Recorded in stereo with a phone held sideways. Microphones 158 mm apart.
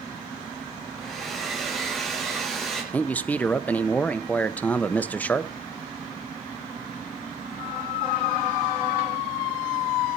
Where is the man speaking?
10° left (ahead or behind), 0.9 m.